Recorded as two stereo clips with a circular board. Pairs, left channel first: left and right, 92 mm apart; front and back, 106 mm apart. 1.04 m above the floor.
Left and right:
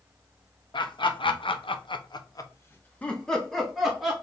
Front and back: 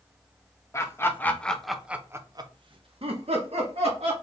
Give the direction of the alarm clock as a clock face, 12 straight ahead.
No alarm clock in this recording.